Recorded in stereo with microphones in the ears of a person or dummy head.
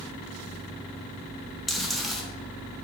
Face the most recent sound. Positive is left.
turn(degrees=5)  # may be behind; listen again after turning